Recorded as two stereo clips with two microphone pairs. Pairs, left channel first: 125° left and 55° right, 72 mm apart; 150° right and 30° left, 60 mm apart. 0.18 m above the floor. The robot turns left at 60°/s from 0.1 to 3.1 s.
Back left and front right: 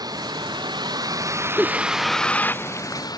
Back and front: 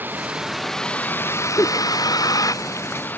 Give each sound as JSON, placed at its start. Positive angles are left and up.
{"t": 0.0, "sound": "a vehicle", "azimuth_deg": -25}
{"t": 1.6, "sound": "a giggle", "azimuth_deg": -135}